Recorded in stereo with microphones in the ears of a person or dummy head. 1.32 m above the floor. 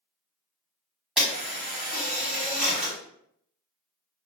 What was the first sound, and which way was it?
A camera shutter, centre (ahead or behind).